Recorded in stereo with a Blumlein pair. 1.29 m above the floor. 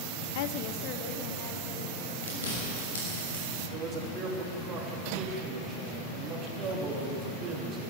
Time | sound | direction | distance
0.3 | a woman speaking | 50° left | 0.5 m
2.2 | chewing | 65° left | 6 m
3.7 | a man speaking | 25° right | 3 m